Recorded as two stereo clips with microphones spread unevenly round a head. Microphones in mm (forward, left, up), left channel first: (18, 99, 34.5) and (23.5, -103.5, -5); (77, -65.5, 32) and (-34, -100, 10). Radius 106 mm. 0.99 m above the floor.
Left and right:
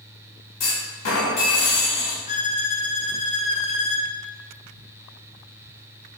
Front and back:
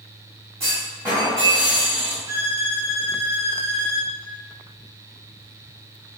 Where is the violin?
150° left, 0.7 m.